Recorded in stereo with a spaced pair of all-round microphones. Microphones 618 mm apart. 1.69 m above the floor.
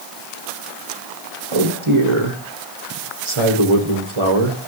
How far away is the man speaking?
About 1.4 m.